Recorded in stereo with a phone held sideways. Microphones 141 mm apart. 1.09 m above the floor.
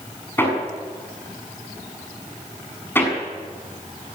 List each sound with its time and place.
0.4 s hammering: 15° left (ahead or behind), 6.5 m